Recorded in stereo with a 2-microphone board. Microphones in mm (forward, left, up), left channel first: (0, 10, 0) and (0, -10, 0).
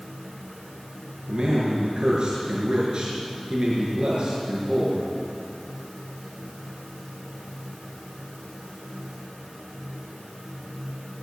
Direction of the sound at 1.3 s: 50° right (ahead or behind).